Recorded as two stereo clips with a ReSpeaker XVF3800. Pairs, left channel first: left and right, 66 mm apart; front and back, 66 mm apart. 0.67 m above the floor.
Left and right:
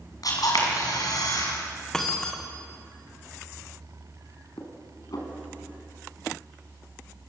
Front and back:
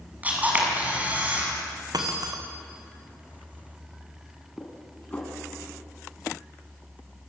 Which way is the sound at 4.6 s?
70° left.